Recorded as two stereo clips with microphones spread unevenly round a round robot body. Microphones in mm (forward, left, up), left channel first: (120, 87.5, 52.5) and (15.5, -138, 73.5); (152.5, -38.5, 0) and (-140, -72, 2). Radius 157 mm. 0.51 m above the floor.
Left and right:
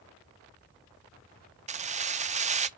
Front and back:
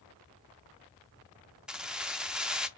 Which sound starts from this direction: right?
Keys jangling, at 1.7 s.